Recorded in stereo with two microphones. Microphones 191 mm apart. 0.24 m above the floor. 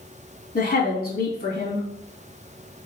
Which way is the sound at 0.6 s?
50° left (ahead or behind).